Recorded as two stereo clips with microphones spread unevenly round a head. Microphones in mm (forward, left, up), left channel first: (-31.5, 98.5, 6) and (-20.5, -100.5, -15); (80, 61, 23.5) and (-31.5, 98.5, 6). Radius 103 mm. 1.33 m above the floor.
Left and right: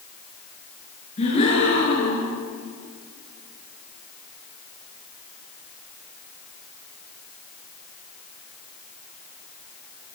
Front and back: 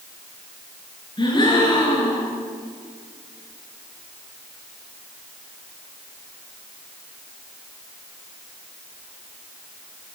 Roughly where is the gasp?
Ahead left.